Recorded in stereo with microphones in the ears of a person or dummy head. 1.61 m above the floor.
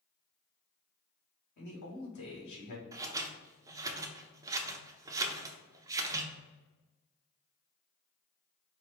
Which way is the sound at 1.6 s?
55° left (ahead or behind).